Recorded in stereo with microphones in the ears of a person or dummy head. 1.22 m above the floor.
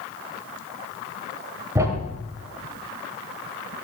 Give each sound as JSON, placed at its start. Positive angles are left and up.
{"t": 1.8, "sound": "a thud", "side_deg": -20, "distance_m": 2.5}